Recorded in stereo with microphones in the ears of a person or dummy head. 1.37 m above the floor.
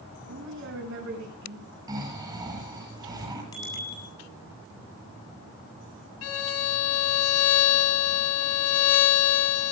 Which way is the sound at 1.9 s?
20° right (ahead or behind).